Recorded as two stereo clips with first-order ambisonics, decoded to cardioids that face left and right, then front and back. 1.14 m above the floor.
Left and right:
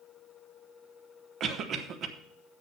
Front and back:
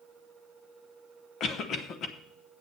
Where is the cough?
50° right, 1.0 m.